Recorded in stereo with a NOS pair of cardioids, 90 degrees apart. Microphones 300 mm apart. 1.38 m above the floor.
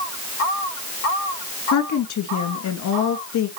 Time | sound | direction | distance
1.7 | a woman speaking | 70° left | 2.5 m